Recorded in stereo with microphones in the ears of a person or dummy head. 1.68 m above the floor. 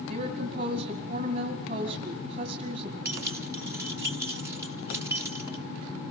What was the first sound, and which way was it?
A woman speaking, 45° right (ahead or behind).